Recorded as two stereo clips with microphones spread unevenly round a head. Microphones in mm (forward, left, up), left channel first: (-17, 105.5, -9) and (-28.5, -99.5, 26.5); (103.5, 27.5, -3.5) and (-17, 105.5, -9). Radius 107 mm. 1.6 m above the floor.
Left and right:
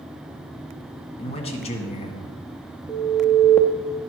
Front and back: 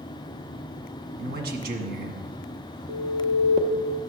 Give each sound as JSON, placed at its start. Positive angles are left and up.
{"t": 1.2, "sound": "a man speaking", "azimuth_deg": 145, "distance_m": 1.6}
{"t": 2.9, "sound": "an alarm", "azimuth_deg": 150, "distance_m": 0.6}